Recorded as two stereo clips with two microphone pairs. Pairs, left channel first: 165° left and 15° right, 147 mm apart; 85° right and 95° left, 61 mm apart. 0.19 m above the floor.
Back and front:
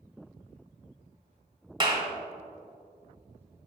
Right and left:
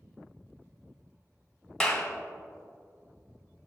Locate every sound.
1.8 s a clap: 15° right, 1.4 m